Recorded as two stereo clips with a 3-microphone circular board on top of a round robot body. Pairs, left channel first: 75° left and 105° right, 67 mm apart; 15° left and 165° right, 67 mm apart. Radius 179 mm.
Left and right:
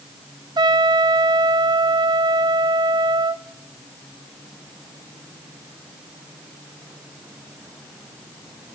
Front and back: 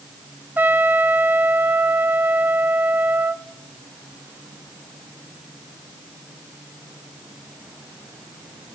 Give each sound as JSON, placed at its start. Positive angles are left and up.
{"t": 0.6, "sound": "a trumpet", "azimuth_deg": -100, "distance_m": 0.5}